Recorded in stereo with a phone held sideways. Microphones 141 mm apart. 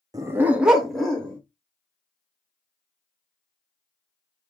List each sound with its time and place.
0.1 s a dog barking: 25° right (ahead or behind), 0.6 m; by 1.4 s 5° left (ahead or behind), 1.4 m